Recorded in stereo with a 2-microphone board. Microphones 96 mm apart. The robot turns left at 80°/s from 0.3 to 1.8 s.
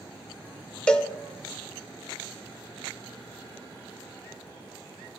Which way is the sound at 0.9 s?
10° left (ahead or behind).